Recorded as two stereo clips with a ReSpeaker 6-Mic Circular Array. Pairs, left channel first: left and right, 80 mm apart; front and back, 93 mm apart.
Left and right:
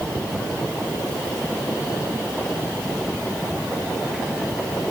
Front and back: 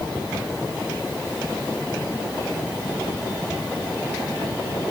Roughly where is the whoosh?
No whoosh in this recording.